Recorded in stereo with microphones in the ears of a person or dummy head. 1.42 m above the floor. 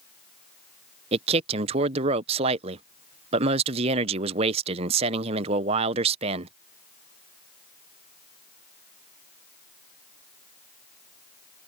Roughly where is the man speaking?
Right.